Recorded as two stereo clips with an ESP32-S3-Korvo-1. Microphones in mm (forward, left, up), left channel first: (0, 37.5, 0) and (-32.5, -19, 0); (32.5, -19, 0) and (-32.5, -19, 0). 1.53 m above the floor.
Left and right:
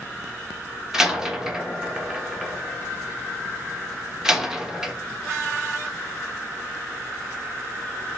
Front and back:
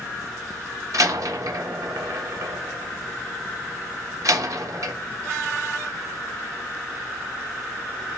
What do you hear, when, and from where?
0.9 s a door slam: 160° left, 1.2 m